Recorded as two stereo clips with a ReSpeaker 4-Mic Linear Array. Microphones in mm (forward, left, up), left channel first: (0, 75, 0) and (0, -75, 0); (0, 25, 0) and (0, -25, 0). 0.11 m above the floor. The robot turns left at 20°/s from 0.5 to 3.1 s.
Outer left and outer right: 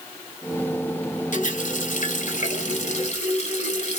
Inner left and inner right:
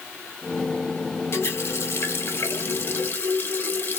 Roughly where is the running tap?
Left.